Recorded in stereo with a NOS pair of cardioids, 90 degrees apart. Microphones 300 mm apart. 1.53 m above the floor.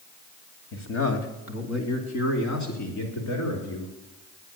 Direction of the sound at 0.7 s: 40° left.